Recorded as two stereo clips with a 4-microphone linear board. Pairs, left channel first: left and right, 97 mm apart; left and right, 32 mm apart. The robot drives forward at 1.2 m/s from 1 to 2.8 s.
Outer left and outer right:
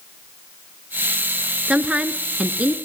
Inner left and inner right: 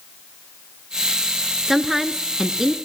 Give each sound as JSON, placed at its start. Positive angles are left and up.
{"t": 1.7, "sound": "a woman speaking", "side_deg": -10, "distance_m": 1.5}